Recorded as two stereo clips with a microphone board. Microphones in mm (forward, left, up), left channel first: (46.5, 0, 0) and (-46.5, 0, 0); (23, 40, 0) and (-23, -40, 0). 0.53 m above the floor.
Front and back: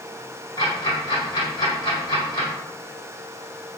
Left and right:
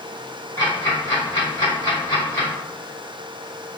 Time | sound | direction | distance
0.6 | ticking | 10° left | 1.8 m